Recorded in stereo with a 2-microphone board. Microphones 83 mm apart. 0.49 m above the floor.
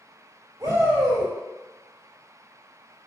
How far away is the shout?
About 2.0 m.